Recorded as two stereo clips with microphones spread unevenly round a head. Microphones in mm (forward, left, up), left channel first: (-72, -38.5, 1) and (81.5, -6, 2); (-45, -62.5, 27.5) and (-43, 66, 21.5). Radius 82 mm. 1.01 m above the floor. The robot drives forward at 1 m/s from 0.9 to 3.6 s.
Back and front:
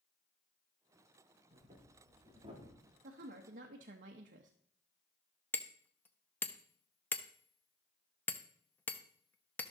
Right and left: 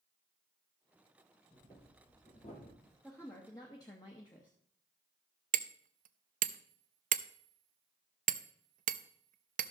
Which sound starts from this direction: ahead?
A woman speaking, at 3.0 s.